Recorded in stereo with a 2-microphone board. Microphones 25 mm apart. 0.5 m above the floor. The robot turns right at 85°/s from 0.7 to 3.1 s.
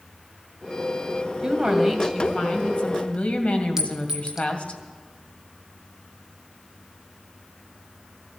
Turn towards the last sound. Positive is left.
turn(degrees=-20)  # may be behind; listen again after turning